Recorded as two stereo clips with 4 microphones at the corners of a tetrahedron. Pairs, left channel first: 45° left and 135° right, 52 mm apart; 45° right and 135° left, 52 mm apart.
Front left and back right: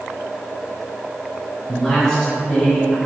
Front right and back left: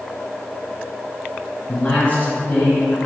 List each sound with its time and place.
1.7 s a man speaking: 35° right, 1.7 m